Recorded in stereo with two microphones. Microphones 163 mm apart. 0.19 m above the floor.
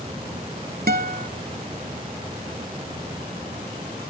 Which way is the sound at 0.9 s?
65° right (ahead or behind).